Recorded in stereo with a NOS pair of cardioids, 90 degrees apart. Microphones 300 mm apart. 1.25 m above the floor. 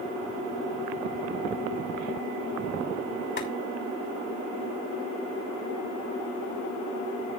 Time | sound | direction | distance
3.4 | boiling | 40° left | 5.5 m